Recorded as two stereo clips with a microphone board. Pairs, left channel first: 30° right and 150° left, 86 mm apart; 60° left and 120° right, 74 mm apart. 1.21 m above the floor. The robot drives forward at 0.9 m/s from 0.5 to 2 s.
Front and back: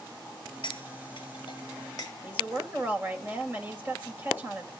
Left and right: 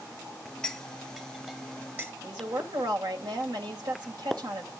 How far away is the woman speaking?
About 2 m.